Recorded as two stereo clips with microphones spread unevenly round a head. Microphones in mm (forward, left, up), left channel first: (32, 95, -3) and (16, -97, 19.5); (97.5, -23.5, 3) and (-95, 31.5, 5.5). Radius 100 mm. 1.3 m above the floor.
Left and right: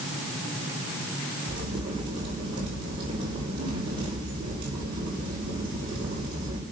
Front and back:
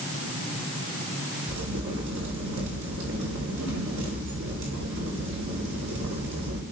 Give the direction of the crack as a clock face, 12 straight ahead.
5 o'clock.